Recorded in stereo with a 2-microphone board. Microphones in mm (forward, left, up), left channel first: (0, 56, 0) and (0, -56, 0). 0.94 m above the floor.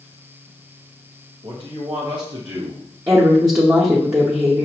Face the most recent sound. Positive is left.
turn(degrees=-25)  # may be behind; listen again after turning